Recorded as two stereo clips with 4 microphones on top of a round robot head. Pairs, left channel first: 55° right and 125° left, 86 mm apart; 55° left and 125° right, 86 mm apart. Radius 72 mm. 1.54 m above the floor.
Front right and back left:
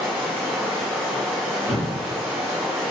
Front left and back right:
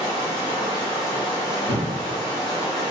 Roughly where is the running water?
Behind.